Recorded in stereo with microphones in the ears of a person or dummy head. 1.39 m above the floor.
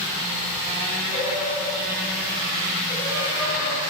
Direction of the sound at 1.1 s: 20° right (ahead or behind).